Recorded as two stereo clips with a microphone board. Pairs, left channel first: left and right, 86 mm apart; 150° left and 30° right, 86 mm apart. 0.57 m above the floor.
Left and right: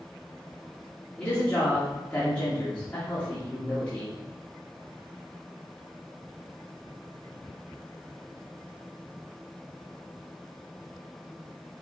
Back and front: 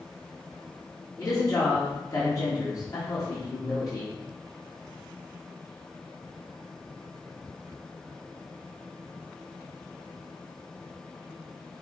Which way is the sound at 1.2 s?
160° left.